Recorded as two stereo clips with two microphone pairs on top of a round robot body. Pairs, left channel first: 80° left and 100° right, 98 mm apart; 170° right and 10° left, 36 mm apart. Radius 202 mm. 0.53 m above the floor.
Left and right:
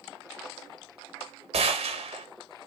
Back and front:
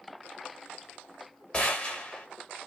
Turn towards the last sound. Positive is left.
turn(degrees=-110)